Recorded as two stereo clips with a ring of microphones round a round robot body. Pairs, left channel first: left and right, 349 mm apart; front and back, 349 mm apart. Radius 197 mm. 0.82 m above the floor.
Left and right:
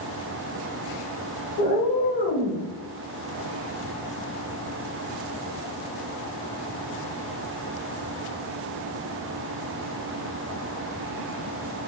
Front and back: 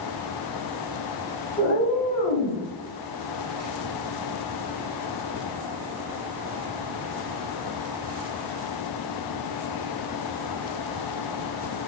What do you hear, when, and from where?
1.6 s a cat meowing: 60° left, 1.2 m; by 2.6 s 15° right, 0.8 m